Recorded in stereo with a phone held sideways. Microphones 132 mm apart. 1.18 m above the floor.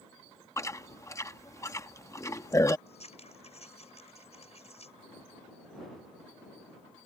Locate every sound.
0.6 s chewing: 25° left (ahead or behind)
2.9 s scissors: 55° left (ahead or behind)